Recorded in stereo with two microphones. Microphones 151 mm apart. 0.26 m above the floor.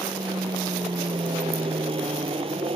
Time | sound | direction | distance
0.0 | an aircraft | 30° right (ahead or behind) | ?